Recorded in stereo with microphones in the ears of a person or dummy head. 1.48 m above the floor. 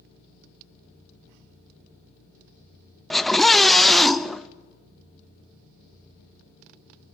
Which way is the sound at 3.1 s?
5° left (ahead or behind).